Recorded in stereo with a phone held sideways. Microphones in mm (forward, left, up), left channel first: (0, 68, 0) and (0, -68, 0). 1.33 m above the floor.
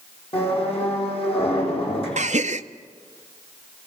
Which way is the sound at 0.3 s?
45° left (ahead or behind).